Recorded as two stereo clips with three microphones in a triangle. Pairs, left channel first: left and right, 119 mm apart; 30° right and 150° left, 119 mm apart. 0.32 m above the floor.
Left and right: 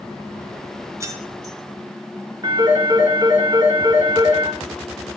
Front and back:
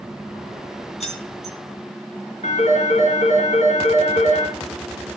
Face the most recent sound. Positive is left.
turn(degrees=-35)